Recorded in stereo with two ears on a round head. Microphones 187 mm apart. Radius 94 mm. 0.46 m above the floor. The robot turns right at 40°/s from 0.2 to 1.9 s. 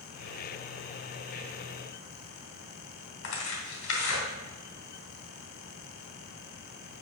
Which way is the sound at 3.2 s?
75° left (ahead or behind).